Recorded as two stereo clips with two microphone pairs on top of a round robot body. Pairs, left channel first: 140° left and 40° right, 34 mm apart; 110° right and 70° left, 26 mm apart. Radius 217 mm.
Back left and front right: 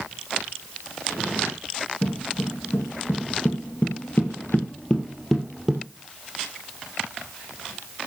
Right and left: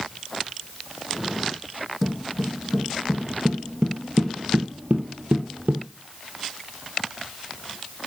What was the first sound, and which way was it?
Footsteps, 165° left.